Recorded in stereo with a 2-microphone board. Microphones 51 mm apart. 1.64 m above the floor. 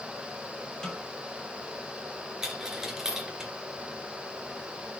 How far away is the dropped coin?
About 3 m.